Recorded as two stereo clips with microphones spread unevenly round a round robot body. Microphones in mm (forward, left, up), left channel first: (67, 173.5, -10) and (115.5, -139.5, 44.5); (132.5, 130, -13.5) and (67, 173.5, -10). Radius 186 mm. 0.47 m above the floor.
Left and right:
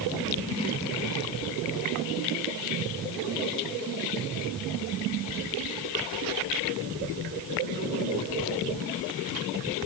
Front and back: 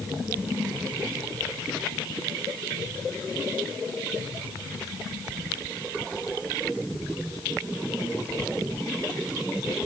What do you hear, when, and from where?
Only background noise.